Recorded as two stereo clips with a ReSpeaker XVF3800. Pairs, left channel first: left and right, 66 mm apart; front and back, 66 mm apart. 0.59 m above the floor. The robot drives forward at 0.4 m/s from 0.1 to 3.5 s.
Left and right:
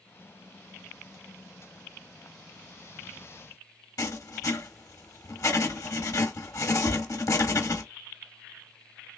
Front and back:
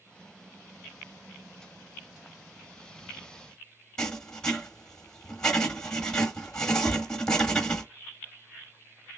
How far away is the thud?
About 2.5 m.